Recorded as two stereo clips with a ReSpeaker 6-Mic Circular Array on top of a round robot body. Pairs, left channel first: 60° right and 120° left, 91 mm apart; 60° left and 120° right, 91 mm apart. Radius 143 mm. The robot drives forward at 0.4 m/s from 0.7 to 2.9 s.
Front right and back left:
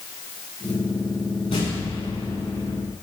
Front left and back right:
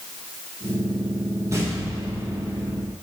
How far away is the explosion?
About 7.5 m.